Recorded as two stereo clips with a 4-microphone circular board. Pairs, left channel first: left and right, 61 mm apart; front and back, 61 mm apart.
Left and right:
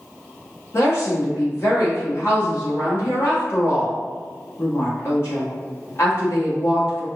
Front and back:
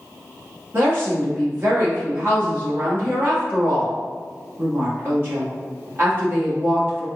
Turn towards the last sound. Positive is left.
turn(degrees=130)